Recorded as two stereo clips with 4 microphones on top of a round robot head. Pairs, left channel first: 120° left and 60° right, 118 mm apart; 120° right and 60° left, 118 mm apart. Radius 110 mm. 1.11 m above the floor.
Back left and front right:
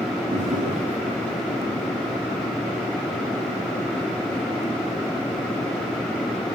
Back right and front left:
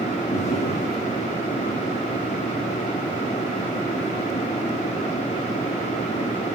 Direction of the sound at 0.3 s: 90° right.